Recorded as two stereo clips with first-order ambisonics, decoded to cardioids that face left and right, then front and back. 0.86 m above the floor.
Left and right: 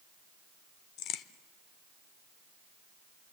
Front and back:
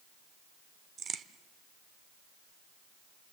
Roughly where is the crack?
Behind left.